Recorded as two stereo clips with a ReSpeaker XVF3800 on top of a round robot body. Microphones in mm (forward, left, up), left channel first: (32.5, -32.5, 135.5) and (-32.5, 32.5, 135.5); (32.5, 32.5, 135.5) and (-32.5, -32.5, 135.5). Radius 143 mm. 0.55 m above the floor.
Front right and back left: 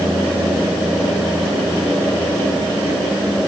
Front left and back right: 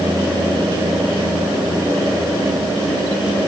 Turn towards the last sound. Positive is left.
No sound to turn to.